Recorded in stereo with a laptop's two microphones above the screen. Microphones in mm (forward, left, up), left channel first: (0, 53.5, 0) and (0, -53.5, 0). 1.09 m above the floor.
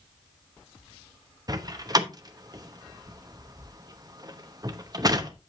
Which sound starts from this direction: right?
A door slam, at 1.5 s.